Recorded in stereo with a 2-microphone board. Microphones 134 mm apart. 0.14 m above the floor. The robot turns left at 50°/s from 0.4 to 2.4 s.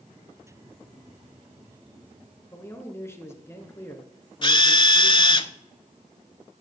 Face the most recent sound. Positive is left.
turn(degrees=40)  # may be behind; listen again after turning